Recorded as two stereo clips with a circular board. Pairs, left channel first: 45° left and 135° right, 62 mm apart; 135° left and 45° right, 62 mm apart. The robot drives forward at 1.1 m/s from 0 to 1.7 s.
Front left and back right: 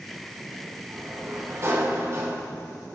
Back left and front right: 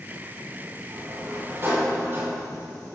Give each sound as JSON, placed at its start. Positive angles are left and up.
{"t": 0.9, "sound": "a sliding door", "azimuth_deg": -85, "distance_m": 5.5}